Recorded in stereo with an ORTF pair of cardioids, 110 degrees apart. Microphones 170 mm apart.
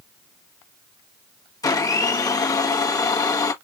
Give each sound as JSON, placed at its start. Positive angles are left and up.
{"t": 1.6, "sound": "a blender", "azimuth_deg": 25, "distance_m": 1.2}